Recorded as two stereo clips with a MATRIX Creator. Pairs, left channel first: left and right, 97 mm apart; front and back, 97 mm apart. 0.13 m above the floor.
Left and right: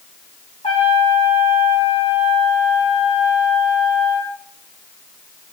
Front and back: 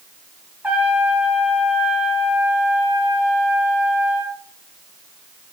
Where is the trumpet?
105° left, 4.5 m.